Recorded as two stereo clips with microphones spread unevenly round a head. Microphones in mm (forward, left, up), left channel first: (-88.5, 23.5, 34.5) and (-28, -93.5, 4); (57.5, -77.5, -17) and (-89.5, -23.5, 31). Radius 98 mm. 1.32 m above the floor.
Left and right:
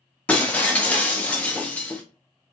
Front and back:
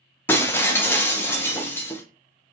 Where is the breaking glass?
80° left, 0.6 m.